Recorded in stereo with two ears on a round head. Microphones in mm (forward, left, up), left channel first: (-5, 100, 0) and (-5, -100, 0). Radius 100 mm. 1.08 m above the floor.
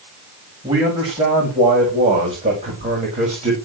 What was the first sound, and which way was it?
A man speaking, 20° right (ahead or behind).